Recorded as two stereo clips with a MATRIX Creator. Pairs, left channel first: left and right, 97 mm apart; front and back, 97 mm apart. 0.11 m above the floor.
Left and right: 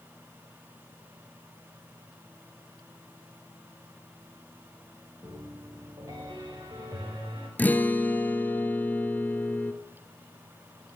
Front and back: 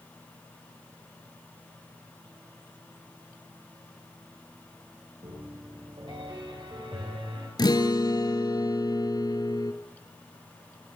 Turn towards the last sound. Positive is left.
turn(degrees=25)